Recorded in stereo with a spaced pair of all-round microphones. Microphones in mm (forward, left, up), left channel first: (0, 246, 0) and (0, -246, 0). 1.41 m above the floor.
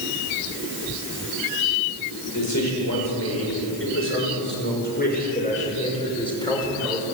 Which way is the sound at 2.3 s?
35° left (ahead or behind).